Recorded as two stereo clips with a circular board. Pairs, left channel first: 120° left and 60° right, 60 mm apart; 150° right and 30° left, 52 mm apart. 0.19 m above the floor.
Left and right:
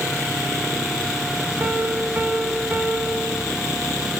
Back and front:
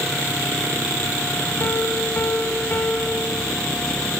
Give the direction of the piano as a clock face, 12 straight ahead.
4 o'clock.